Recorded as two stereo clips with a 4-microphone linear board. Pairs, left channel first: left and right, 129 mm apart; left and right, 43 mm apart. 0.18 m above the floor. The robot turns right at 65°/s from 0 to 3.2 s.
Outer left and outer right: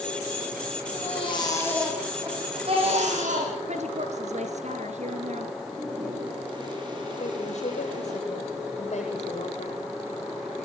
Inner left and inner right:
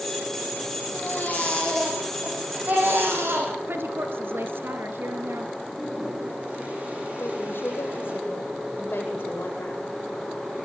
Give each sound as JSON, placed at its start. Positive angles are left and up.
{"t": 0.9, "sound": "a baby crying", "azimuth_deg": 115, "distance_m": 7.0}
{"t": 3.7, "sound": "a woman speaking", "side_deg": -65, "distance_m": 3.0}
{"t": 5.6, "sound": "a toilet flushing", "side_deg": -35, "distance_m": 6.0}
{"t": 7.2, "sound": "a woman speaking", "side_deg": 65, "distance_m": 8.0}